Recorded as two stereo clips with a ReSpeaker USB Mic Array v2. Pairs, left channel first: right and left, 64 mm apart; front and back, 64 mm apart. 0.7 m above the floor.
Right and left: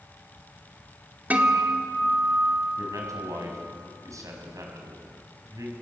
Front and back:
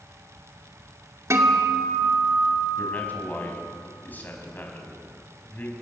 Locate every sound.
1.3 s a guitar: 150° left, 2 m
2.8 s a man speaking: 60° left, 4.5 m